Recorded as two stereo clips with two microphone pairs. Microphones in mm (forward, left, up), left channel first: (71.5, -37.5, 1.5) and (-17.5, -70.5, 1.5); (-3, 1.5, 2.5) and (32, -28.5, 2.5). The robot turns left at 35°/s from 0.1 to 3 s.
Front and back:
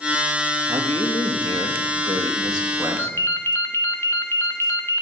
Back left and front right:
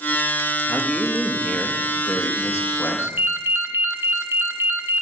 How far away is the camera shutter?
No camera shutter in this recording.